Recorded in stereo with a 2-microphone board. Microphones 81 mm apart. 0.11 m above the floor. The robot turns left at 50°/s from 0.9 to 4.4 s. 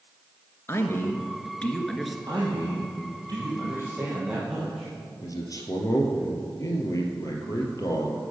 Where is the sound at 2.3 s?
70° right, 3.5 m; by 4.9 s 175° right, 3.5 m.